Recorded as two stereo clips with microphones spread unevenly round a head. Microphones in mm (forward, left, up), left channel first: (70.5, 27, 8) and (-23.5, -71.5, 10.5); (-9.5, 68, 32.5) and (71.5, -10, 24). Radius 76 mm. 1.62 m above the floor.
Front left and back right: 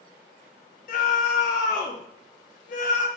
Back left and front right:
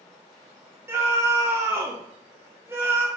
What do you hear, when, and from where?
0.9 s a scream: 25° left, 1.4 m